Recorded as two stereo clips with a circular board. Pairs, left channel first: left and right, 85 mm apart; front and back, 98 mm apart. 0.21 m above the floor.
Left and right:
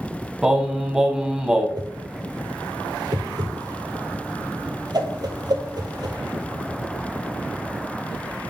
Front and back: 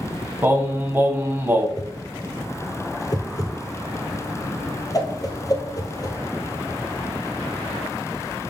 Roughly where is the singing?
Behind.